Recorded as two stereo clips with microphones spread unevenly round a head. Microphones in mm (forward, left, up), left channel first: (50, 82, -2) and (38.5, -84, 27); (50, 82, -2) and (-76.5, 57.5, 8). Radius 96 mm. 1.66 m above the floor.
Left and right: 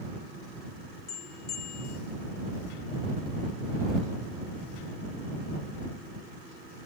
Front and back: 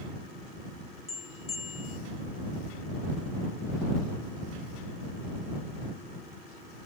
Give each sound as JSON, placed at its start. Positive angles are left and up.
{"t": 1.1, "sound": "a bell", "azimuth_deg": 55}